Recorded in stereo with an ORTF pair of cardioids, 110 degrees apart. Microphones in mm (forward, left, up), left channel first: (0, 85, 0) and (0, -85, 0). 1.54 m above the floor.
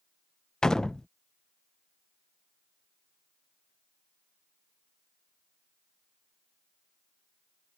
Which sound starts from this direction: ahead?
A door slam, at 0.6 s.